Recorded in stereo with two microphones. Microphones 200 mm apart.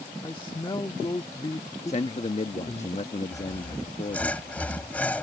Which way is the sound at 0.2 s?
25° left (ahead or behind).